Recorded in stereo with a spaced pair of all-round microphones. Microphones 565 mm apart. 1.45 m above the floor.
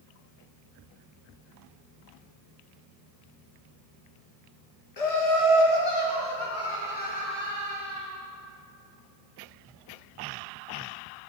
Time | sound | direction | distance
5.0 | laughter | 75° left (ahead or behind) | 1.0 m